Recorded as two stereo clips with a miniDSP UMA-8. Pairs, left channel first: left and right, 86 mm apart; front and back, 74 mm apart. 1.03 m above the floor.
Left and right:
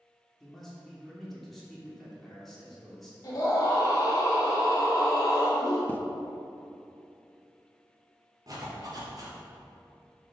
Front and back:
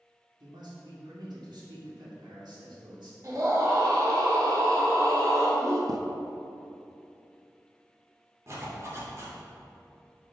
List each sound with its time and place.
0.4 s a man speaking: straight behind, 2.5 m
3.2 s a scream: 140° left, 2.5 m
5.9 s a zipper: 155° left, 0.6 m
8.5 s a zipper: 130° right, 3 m